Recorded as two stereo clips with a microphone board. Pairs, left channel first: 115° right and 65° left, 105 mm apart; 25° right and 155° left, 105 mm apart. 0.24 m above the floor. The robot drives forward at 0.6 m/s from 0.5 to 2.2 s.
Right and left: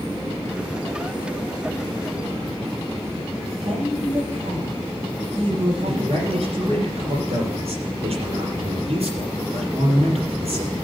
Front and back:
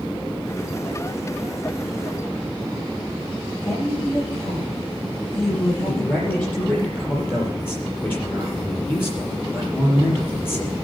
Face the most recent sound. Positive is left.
turn(degrees=50)